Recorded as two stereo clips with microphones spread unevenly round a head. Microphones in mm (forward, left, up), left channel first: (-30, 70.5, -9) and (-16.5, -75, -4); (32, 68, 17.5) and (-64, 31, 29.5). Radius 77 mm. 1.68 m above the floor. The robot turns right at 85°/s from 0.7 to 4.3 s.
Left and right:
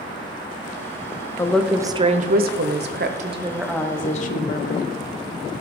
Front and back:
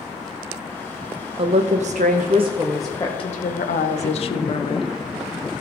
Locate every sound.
1.4 s a woman speaking: 170° left, 0.8 m; by 4.9 s 55° left, 0.8 m